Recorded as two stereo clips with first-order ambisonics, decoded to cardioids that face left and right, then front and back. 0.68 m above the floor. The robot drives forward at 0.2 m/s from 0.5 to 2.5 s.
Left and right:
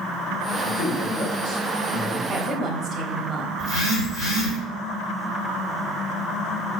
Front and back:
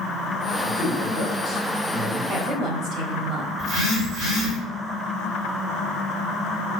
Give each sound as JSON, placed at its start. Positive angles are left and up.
{"t": 0.6, "sound": "a man speaking", "azimuth_deg": 105, "distance_m": 1.8}
{"t": 2.3, "sound": "a woman speaking", "azimuth_deg": -140, "distance_m": 0.8}
{"t": 3.6, "sound": "a phone buzzing", "azimuth_deg": 145, "distance_m": 1.6}